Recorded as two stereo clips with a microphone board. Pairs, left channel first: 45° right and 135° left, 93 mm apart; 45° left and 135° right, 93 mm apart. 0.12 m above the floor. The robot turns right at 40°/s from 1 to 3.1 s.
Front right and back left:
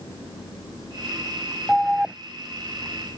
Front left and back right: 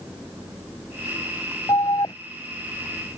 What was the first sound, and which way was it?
An alarm, 45° left.